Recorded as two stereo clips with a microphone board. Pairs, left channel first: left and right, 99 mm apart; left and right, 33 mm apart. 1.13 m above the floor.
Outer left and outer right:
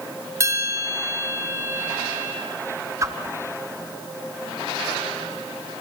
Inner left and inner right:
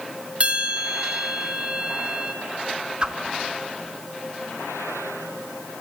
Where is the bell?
30° right (ahead or behind), 3 m.